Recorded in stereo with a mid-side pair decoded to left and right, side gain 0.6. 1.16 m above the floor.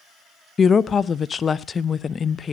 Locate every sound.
0.6 s a woman speaking: 35° left, 0.6 m